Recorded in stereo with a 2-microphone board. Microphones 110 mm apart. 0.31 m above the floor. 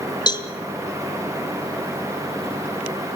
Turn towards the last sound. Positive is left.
turn(degrees=40)  # may be behind; listen again after turning